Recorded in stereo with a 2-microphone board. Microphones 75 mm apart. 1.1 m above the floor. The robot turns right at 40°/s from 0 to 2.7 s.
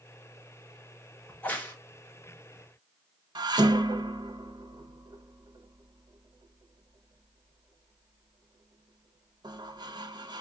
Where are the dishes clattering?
70° right (ahead or behind), 0.6 m.